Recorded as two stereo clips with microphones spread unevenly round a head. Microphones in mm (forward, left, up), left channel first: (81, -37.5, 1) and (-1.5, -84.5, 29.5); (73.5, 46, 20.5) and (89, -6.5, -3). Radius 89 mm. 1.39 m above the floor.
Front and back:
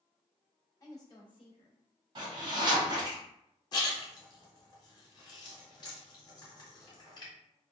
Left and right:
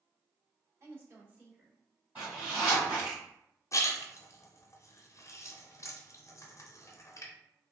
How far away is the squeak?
I don't hear a squeak.